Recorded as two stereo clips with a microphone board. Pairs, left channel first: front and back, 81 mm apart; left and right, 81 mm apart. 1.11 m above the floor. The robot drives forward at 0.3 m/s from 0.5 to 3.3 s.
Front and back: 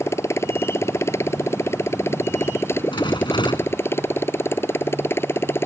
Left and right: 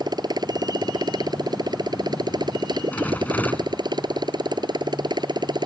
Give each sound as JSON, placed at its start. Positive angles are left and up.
{"t": 0.0, "sound": "a motorcycle", "azimuth_deg": -55}
{"t": 2.9, "sound": "a rattle", "azimuth_deg": 20}